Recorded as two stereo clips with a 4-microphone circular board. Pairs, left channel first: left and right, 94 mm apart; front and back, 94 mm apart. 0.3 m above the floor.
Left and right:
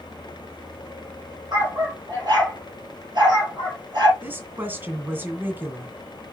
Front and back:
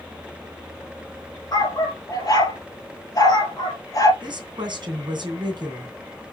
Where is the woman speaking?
155° right, 2.5 m.